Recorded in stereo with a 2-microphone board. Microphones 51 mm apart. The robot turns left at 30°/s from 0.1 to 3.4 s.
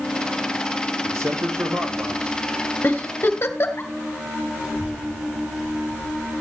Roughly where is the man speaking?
Ahead right.